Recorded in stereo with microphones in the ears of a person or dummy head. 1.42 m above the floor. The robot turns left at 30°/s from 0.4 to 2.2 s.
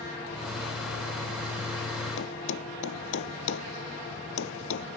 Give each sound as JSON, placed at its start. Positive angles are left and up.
{"t": 2.2, "sound": "a thud", "side_deg": 75}